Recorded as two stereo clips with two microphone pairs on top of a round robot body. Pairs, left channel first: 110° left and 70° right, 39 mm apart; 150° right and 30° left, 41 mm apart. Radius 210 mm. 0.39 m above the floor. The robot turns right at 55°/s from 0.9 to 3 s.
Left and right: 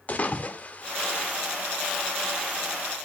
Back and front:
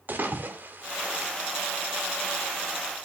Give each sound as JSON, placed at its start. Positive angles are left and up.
{"t": 0.1, "sound": "a splash", "azimuth_deg": 70, "distance_m": 2.0}